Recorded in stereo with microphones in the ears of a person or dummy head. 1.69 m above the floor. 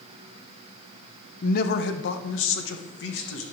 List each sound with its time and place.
1.4 s a man speaking: 50° left (ahead or behind), 1.0 m; by 3.4 s 80° left, 2.0 m